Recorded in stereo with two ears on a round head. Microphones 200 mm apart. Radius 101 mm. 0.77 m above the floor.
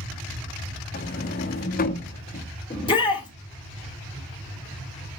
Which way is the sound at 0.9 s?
40° left (ahead or behind).